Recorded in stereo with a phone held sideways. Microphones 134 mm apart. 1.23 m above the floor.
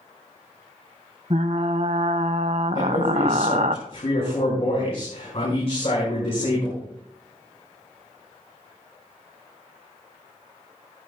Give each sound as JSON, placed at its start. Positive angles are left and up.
{"t": 1.3, "sound": "frying", "side_deg": -60, "distance_m": 0.7}
{"t": 2.8, "sound": "a man speaking", "side_deg": 45, "distance_m": 6.5}